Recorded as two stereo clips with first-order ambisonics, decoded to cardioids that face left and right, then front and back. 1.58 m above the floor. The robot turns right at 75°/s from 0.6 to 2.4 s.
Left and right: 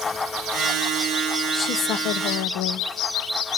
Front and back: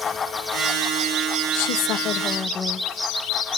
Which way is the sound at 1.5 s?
10° left.